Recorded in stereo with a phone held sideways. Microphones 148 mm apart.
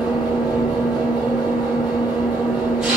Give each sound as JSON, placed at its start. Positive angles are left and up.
{"t": 0.0, "sound": "an engine running", "side_deg": -5, "distance_m": 1.6}